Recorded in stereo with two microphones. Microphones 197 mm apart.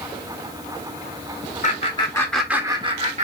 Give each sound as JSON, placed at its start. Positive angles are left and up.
{"t": 1.6, "sound": "laughter", "side_deg": 40, "distance_m": 0.9}